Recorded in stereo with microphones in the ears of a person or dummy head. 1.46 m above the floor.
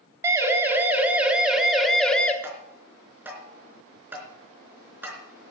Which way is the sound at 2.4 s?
10° right (ahead or behind).